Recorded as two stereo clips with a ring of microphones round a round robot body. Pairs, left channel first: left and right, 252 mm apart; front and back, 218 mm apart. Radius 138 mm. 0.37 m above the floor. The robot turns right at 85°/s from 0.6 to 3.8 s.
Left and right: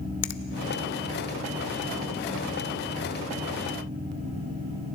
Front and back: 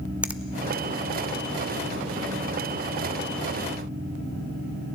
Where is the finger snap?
95° left, 0.8 m.